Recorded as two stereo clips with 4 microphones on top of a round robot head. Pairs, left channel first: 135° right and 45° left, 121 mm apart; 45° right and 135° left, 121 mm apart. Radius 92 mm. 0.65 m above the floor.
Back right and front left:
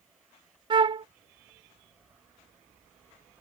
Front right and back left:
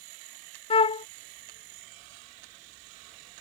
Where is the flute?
5° right.